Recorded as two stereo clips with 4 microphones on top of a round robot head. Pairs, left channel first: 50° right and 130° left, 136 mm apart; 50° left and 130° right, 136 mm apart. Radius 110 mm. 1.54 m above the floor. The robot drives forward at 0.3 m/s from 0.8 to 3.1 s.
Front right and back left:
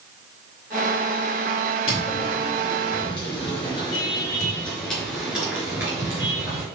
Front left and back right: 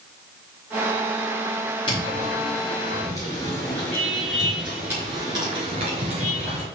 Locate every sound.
1.9 s footsteps: 5° right, 2.5 m; by 6.7 s 170° right, 2.0 m